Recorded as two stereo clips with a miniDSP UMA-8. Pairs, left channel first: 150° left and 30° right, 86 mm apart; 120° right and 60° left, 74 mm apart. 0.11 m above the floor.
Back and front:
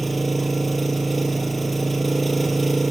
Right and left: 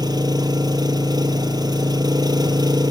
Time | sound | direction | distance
0.0 | an engine running | 60° left | 1.5 m